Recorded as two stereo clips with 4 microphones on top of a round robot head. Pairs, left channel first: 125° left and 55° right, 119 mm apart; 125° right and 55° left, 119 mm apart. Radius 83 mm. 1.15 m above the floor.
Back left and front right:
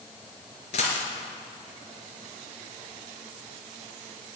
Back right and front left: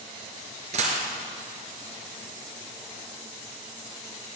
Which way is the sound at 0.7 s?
90° left.